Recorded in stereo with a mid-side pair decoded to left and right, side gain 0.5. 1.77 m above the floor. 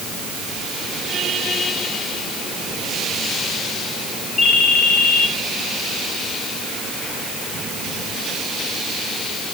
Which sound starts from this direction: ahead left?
A ringtone, at 4.4 s.